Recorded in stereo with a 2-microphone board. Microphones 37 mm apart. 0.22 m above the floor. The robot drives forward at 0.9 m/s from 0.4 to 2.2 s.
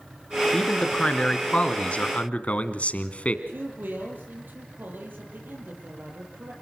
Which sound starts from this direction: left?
A man speaking, at 0.5 s.